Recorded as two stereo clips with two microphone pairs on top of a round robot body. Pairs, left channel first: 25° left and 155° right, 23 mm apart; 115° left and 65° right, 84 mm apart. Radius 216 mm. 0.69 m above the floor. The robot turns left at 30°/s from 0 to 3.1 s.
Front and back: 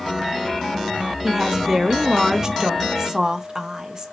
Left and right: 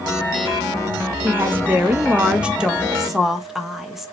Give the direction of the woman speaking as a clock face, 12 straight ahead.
4 o'clock.